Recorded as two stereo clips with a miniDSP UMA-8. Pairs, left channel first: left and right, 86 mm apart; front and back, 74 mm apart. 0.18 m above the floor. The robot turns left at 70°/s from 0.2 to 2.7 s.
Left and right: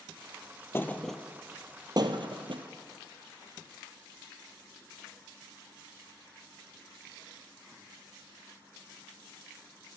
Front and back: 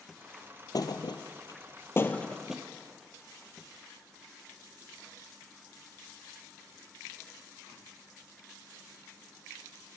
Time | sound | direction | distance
0.7 | a thud | 30° left | 0.9 m